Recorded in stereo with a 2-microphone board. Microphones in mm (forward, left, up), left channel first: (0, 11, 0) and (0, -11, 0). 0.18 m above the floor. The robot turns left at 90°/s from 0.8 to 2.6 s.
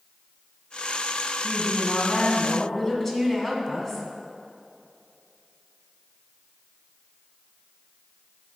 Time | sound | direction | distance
1.4 | a woman speaking | 20° left (ahead or behind) | 1.4 m